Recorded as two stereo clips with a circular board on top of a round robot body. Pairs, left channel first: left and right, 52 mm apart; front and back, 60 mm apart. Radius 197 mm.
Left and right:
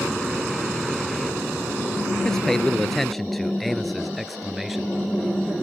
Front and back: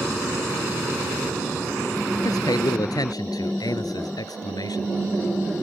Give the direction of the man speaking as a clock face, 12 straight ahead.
12 o'clock.